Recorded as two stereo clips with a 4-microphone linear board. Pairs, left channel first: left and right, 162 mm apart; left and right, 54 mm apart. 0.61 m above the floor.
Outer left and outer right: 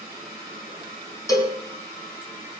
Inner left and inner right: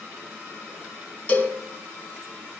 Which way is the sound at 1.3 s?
25° left (ahead or behind).